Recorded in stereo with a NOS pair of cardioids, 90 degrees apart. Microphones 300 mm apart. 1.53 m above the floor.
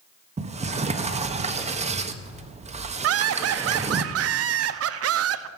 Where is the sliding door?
25° right, 1.0 m.